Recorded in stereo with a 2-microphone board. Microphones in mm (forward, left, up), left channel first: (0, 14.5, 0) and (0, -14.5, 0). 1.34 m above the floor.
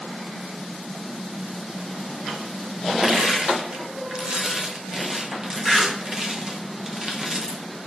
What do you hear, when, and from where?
3.0 s crushing: 25° right (ahead or behind), 0.6 m